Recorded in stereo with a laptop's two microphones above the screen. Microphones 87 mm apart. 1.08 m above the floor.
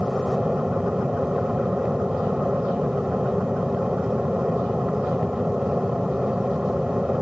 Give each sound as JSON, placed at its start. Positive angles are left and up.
{"t": 0.0, "sound": "an aircraft", "side_deg": -10}